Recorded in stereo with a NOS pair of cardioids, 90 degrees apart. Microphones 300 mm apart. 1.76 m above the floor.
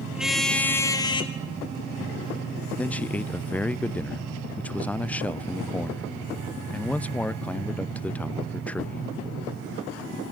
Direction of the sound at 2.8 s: 5° left.